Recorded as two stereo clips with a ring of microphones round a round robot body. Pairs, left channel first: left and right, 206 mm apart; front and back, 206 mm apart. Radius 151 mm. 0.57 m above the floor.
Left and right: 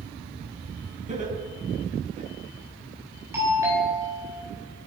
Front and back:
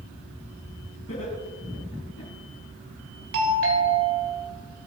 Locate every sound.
1.1 s laughter: 35° right, 6 m; by 2.3 s 45° right, 7.5 m
3.3 s a doorbell: 170° right, 3 m